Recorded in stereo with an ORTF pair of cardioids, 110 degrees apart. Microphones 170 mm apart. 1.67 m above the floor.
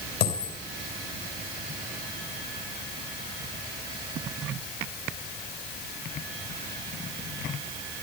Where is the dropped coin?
65° left, 4 m.